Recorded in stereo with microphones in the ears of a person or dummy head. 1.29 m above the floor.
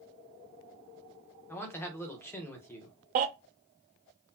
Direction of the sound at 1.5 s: 10° left (ahead or behind).